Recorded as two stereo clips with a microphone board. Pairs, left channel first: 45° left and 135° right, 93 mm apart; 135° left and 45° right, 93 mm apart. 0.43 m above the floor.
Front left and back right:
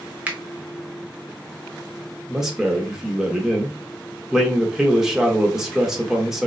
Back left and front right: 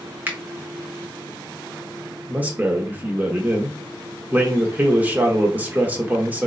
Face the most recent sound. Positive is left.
turn(degrees=-65)